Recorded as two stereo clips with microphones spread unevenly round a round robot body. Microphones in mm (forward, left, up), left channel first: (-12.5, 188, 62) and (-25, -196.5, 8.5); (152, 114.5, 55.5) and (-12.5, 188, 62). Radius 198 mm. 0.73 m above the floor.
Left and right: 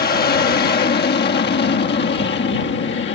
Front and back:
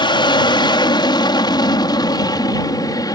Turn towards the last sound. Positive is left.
turn(degrees=35)